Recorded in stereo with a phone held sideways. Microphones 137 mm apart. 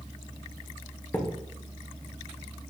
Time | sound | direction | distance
1.1 | a thud | 15° left (ahead or behind) | 1.1 m